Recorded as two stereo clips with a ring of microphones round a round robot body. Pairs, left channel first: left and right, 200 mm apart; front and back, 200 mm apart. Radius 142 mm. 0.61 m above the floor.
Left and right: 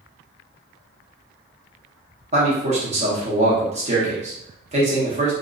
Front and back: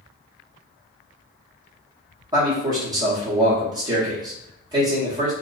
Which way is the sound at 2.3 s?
120° right.